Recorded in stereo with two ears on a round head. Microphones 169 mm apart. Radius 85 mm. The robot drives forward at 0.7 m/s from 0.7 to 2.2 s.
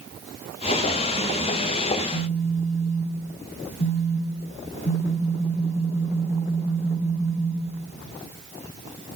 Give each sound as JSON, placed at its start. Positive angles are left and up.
{"t": 1.9, "sound": "a phone buzzing", "side_deg": 35, "distance_m": 5.5}